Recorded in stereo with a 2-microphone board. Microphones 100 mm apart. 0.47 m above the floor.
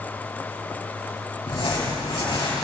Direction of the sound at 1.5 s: 65° left (ahead or behind).